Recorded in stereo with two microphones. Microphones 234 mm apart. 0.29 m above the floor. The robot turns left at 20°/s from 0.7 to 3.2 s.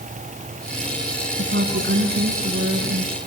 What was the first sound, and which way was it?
A woman speaking, 120° right.